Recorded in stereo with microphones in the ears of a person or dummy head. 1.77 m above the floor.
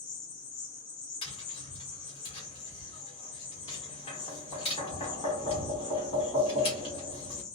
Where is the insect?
25° left (ahead or behind), 0.8 m.